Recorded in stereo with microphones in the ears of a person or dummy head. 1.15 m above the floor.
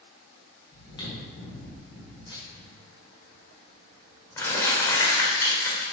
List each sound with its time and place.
0.7 s chewing: 35° left (ahead or behind), 2 m
2.5 s crumpling: 25° left (ahead or behind), 1.7 m